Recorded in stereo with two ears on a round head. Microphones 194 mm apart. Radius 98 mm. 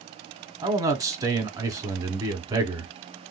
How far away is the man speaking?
About 1.0 m.